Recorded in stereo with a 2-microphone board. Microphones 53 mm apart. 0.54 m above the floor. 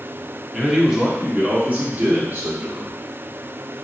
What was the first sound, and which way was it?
A man speaking, centre (ahead or behind).